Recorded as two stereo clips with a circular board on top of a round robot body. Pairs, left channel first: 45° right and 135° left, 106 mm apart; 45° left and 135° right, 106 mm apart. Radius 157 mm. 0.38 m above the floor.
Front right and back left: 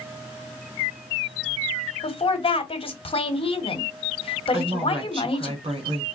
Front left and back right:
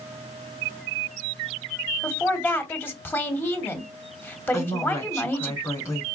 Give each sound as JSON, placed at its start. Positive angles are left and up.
{"t": 2.0, "sound": "a woman speaking", "azimuth_deg": -25, "distance_m": 1.5}
{"t": 4.5, "sound": "a woman speaking", "azimuth_deg": 105, "distance_m": 2.5}